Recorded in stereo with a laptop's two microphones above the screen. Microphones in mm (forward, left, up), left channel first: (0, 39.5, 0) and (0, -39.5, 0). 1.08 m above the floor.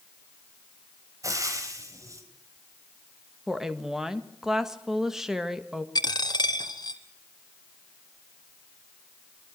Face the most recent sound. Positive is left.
turn(degrees=60)  # may be behind; listen again after turning